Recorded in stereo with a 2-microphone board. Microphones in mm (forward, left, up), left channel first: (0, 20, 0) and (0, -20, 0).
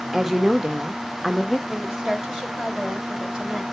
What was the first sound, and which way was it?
A woman speaking, 5° right (ahead or behind).